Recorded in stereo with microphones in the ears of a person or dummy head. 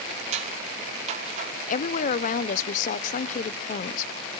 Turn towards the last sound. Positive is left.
turn(degrees=45)  # may be behind; listen again after turning